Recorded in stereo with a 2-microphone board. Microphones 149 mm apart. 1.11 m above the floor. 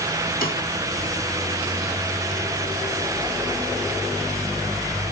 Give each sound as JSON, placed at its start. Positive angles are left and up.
{"t": 0.4, "sound": "a snare drum", "side_deg": 70, "distance_m": 2.5}